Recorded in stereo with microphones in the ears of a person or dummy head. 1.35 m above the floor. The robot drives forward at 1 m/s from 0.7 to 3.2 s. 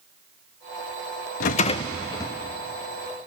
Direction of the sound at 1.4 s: 45° left (ahead or behind).